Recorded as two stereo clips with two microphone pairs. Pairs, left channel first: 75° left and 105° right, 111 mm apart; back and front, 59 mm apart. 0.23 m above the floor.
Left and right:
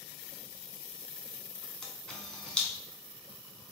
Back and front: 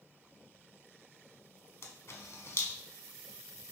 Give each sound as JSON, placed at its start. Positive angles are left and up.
{"t": 1.8, "sound": "a camera shutter", "azimuth_deg": 155, "distance_m": 0.5}